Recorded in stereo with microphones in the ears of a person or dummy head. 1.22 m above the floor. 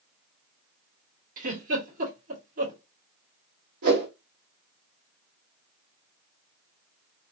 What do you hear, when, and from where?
1.4 s a giggle: 45° right (ahead or behind), 1.7 m
3.8 s a whoosh: 50° right (ahead or behind), 1.6 m